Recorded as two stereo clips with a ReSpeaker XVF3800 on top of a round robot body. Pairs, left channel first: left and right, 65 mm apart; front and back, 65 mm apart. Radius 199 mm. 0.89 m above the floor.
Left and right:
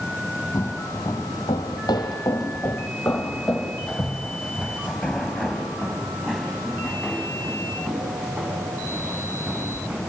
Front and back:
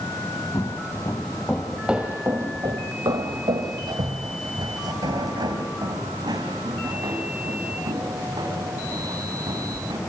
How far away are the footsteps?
About 1.4 m.